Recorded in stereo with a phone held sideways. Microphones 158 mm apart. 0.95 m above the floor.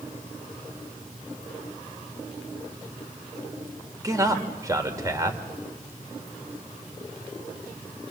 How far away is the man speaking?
About 3 m.